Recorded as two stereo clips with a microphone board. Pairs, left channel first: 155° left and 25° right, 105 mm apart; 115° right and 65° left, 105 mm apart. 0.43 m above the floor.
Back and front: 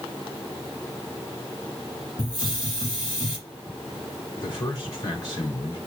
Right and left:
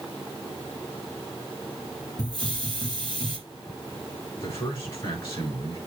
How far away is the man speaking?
About 5.5 m.